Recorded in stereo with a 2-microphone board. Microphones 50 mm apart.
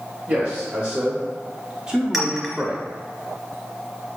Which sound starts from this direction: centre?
A clink, at 2.1 s.